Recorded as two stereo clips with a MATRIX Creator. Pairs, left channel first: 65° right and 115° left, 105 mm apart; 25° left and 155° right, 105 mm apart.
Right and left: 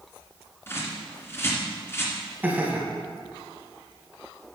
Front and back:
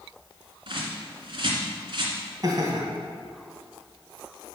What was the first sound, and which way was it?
A bird, 130° right.